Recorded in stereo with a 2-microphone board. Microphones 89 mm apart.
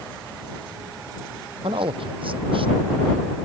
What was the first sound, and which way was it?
A man speaking, 75° right (ahead or behind).